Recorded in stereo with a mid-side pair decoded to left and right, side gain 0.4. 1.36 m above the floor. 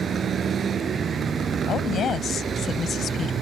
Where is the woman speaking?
60° left.